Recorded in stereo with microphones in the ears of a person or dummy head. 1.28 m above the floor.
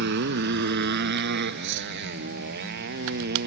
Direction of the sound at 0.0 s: 60° right (ahead or behind).